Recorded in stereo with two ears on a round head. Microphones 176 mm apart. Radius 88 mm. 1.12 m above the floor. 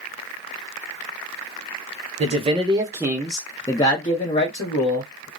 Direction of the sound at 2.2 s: 35° right (ahead or behind).